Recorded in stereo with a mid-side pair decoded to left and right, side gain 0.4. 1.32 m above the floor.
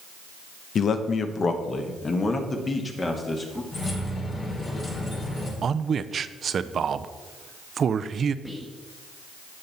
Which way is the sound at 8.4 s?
5° left.